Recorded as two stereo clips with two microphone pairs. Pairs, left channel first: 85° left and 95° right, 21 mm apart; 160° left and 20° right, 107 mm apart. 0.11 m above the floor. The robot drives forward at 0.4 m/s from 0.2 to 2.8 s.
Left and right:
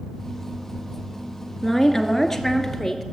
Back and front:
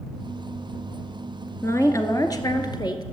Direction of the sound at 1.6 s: 155° left.